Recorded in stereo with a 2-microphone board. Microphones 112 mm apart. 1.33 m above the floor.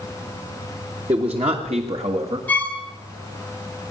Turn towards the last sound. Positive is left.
turn(degrees=15)  # may be behind; listen again after turning